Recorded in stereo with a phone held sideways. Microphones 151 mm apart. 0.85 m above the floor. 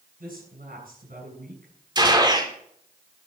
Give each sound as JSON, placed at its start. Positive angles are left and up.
{"t": 0.2, "sound": "a woman speaking", "side_deg": -80, "distance_m": 7.0}
{"t": 1.9, "sound": "a gunshot", "side_deg": -30, "distance_m": 3.0}